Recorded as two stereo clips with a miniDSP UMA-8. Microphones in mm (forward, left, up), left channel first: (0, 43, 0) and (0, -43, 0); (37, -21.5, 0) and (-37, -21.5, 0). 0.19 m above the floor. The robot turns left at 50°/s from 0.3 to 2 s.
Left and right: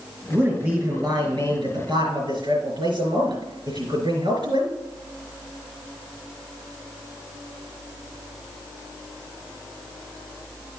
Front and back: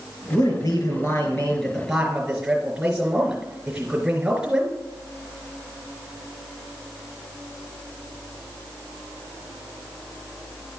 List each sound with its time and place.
0.3 s a man speaking: 15° right, 4 m; by 4.7 s 100° right, 4 m